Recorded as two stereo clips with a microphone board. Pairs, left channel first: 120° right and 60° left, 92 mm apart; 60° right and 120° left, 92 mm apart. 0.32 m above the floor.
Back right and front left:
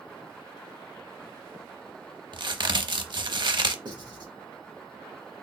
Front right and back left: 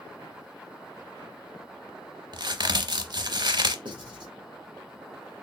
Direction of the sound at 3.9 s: 90° left.